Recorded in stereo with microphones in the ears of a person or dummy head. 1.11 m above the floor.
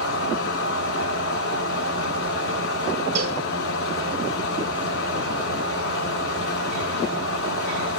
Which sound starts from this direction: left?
A fan, at 0.0 s.